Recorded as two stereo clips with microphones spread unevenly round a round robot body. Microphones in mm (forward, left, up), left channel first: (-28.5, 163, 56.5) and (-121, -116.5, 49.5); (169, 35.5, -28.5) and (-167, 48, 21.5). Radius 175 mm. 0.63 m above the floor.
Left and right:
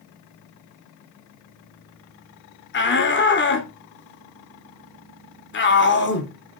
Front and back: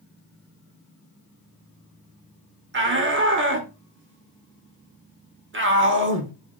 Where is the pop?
No pop in this recording.